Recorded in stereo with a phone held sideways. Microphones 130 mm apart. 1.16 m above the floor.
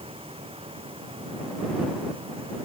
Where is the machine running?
45° right (ahead or behind).